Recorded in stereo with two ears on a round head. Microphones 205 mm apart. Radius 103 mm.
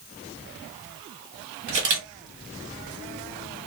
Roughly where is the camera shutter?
Right.